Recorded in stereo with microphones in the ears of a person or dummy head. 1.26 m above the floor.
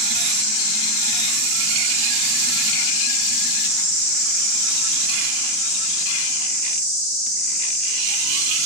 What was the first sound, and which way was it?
An insect, 50° left (ahead or behind).